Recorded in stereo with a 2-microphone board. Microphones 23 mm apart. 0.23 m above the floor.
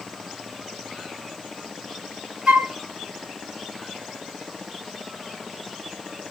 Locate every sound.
2.5 s a flute: 50° right (ahead or behind), 0.6 m